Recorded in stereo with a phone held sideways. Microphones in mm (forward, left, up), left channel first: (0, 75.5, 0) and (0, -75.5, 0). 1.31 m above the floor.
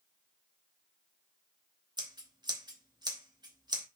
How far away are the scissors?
About 2.5 m.